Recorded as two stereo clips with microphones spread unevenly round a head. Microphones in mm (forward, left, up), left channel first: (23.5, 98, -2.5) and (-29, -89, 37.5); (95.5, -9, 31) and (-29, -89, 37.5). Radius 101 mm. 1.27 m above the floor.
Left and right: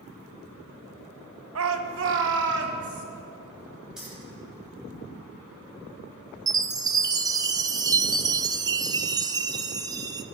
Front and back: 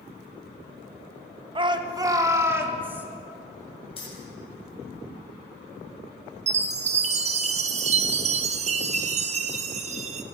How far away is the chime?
About 0.7 m.